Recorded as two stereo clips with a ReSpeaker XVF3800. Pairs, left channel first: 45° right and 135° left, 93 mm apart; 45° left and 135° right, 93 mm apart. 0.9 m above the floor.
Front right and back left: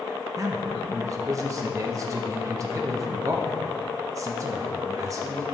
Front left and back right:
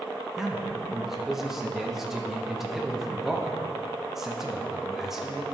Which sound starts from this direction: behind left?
A man speaking, at 0.4 s.